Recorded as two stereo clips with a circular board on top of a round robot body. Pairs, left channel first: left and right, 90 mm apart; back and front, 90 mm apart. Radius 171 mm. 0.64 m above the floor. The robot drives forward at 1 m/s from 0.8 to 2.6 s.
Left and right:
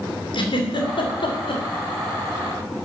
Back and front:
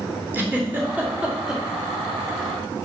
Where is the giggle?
65° left, 2.5 m; by 1.6 s 85° left, 2.5 m.